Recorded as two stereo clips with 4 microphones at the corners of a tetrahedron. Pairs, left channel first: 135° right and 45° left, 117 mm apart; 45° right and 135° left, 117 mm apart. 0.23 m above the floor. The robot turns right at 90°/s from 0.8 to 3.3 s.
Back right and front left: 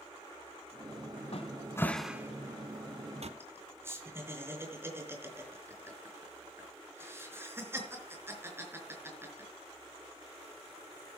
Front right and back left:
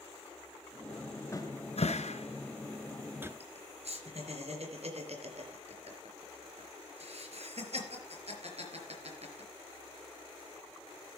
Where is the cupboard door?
110° right, 1.0 m; by 3.3 s 70° left, 1.0 m.